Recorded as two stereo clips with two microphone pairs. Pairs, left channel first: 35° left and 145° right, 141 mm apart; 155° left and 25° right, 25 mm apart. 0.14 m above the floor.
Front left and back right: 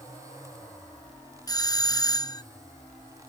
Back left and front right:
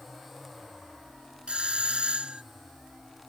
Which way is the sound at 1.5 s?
15° right.